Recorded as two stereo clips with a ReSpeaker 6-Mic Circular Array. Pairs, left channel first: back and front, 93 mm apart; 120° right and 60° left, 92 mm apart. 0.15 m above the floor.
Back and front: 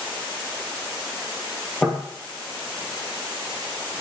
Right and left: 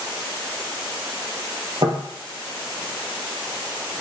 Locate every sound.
1.8 s knocking: 100° left, 2.5 m